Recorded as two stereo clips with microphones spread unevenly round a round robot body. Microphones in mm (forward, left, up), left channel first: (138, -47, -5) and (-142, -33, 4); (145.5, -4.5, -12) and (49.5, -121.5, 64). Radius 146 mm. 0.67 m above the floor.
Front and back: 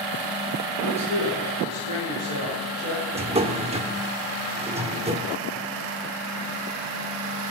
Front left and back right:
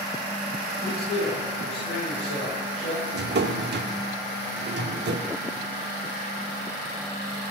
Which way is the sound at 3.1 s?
115° right.